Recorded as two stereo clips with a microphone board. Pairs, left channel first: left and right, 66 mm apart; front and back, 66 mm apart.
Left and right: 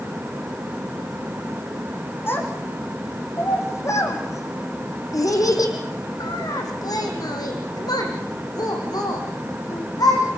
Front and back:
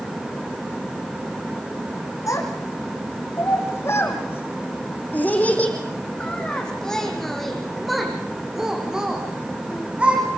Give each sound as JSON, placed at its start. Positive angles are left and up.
{"t": 2.3, "sound": "a child speaking", "azimuth_deg": 35, "distance_m": 6.0}